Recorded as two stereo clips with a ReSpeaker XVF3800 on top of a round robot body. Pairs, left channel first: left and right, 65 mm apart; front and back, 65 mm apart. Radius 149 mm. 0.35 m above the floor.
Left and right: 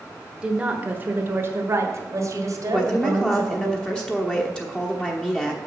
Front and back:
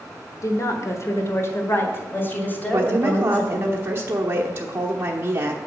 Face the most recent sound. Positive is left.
turn(degrees=155)